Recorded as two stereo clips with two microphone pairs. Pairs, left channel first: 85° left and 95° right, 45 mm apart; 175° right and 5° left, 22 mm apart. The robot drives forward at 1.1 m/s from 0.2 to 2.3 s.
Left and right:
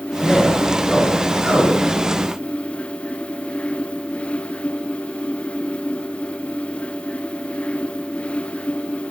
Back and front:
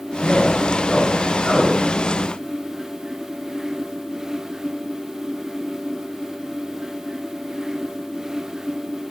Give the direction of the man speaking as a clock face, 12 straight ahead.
7 o'clock.